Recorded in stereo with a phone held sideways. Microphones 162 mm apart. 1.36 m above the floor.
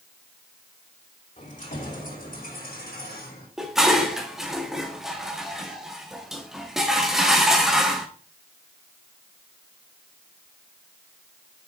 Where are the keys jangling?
50° left (ahead or behind), 3.5 m; by 3.5 s 80° left, 3.5 m.